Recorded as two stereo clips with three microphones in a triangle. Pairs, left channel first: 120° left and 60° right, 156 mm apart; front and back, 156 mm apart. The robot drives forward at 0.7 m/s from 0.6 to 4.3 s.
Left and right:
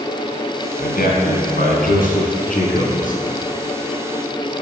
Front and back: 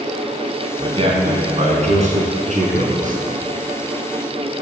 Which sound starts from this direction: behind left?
A man speaking, at 0.8 s.